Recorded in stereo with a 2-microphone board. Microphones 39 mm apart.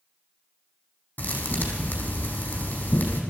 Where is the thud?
40° left (ahead or behind), 4 m.